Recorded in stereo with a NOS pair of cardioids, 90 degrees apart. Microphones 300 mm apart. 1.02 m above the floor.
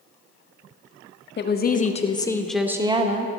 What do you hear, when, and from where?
1.4 s a woman speaking: 40° left, 1.1 m; by 3.4 s 30° right, 1.0 m